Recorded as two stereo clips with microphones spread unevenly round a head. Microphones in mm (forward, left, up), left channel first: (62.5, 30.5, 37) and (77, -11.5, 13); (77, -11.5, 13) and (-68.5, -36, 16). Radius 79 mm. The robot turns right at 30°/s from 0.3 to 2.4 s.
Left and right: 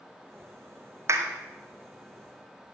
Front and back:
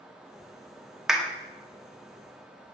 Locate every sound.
1.1 s a clap: 85° right, 1.9 m; by 1.3 s 80° right, 1.9 m